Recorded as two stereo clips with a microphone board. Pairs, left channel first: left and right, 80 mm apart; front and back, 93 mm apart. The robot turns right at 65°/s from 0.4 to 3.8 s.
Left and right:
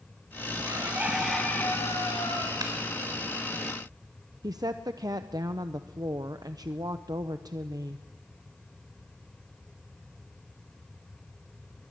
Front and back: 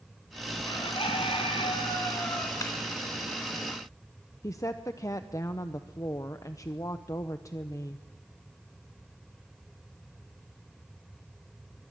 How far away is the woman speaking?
About 0.8 m.